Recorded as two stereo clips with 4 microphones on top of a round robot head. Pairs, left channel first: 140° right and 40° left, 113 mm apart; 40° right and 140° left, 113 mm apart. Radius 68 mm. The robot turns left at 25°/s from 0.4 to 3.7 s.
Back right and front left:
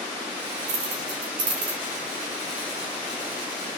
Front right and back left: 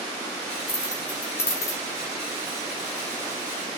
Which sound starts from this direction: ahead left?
Keys jangling, at 0.7 s.